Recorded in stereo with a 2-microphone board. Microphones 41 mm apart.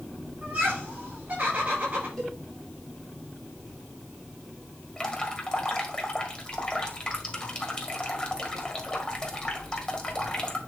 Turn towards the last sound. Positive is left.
turn(degrees=20)  # may be behind; listen again after turning